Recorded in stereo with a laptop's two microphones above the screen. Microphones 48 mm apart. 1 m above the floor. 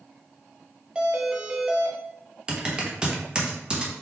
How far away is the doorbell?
About 0.7 m.